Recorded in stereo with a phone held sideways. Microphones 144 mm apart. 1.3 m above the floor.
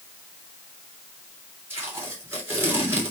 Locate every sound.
1.7 s tape being pulled: 15° right (ahead or behind), 3 m